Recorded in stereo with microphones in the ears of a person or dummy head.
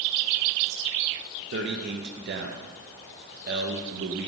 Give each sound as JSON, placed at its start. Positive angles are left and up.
{"t": 1.5, "sound": "a man speaking", "side_deg": -55, "distance_m": 0.7}